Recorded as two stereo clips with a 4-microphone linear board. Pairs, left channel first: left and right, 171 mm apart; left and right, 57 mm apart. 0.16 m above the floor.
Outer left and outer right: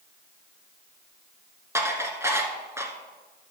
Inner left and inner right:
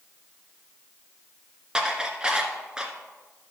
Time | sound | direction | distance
1.8 | dishes clattering | 15° right (ahead or behind) | 1.3 m